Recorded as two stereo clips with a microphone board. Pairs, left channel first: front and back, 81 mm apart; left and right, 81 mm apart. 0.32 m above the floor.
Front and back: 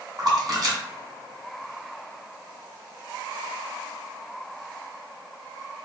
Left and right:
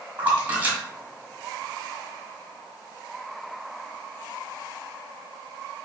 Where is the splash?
155° right, 1.5 m.